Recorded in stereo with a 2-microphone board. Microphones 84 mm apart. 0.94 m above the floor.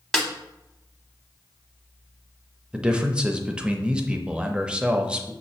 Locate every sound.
0.1 s a snare drum: 5° left (ahead or behind), 0.8 m
2.7 s a man speaking: 10° right (ahead or behind), 0.6 m